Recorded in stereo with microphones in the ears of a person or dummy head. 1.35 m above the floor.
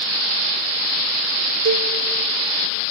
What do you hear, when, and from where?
1.6 s a cowbell: 60° right (ahead or behind), 1.3 m